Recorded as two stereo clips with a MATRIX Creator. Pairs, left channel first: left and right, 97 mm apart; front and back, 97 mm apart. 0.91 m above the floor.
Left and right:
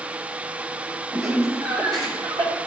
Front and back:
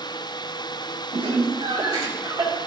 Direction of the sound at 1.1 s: 150° right.